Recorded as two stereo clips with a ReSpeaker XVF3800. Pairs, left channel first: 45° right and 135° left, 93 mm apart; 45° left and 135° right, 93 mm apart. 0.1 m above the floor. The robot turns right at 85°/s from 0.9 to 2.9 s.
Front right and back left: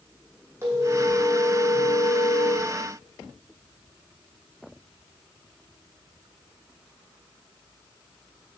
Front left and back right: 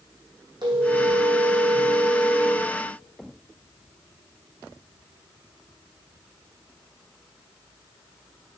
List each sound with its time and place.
0.6 s a phone ringing: 165° right, 3 m; by 2.7 s 10° right, 3 m